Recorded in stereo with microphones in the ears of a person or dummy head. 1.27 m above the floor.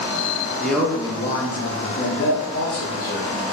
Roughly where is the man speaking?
Centre.